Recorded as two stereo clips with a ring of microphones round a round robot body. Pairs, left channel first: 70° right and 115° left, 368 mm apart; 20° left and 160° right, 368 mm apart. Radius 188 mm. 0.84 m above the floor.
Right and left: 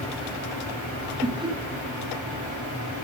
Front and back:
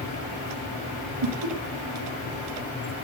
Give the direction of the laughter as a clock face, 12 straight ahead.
6 o'clock.